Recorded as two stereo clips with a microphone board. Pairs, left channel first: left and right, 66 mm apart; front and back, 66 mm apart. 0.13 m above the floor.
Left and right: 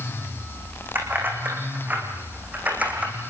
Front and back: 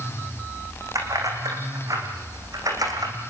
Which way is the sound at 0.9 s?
150° right.